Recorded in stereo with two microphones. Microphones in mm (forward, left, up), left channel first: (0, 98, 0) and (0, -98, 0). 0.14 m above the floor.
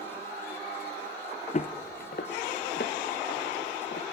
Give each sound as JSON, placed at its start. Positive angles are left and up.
{"t": 1.5, "sound": "footsteps", "side_deg": 40, "distance_m": 0.6}